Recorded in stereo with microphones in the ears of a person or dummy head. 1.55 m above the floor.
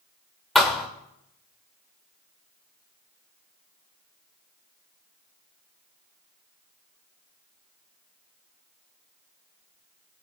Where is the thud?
5° left (ahead or behind), 1.6 m.